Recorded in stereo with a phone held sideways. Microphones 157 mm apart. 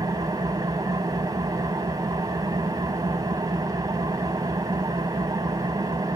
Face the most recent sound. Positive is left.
turn(degrees=-25)  # may be behind; listen again after turning